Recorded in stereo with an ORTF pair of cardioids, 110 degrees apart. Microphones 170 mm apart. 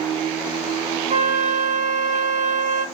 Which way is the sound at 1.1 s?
50° right.